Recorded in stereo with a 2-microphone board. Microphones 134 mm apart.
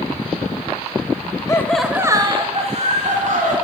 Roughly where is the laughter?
Left.